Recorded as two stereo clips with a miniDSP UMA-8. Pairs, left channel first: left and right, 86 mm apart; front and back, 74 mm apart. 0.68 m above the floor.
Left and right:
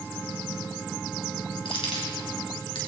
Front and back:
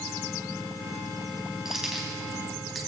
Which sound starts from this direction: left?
Keys jangling, at 1.6 s.